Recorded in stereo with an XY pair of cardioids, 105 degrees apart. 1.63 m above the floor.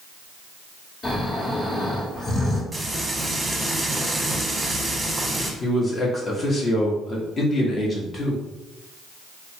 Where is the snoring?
50° left, 1.5 m.